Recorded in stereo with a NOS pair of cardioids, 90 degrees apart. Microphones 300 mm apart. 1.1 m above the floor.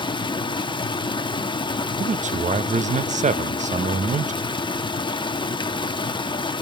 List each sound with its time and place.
0.0 s running water: 15° left, 1.2 m
2.0 s a man speaking: 25° right, 1.0 m